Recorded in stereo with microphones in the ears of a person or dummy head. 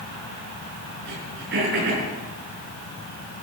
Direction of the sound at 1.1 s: 60° right (ahead or behind).